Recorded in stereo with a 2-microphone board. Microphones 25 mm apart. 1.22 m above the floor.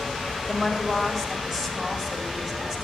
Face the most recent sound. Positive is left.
turn(degrees=-20)  # may be behind; listen again after turning